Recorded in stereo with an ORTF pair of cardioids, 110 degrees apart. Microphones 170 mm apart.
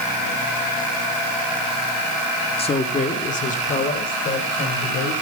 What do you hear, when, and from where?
2.6 s a man speaking: 35° left, 1.6 m; by 5.1 s 60° left, 5.5 m